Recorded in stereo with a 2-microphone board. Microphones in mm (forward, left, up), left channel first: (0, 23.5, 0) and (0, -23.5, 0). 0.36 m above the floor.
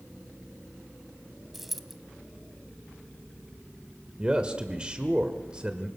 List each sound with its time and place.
1.5 s a dropped coin: 5° right (ahead or behind), 1.1 m
4.2 s a man speaking: 20° right (ahead or behind), 1.5 m